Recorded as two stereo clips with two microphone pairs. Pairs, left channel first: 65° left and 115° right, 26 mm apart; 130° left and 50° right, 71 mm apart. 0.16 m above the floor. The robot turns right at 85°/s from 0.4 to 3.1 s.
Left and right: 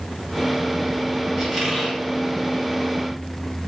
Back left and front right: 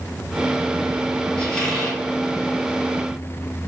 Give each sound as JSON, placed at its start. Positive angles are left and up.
{"t": 1.4, "sound": "a squeak", "azimuth_deg": 165, "distance_m": 1.0}